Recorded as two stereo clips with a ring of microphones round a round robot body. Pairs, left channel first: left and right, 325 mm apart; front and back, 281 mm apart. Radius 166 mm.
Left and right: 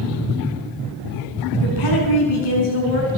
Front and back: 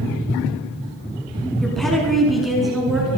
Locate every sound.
1.6 s a woman speaking: 90° left, 5 m